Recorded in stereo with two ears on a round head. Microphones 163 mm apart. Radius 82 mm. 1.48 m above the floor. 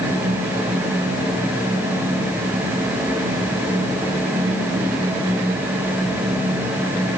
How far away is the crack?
I don't hear a crack.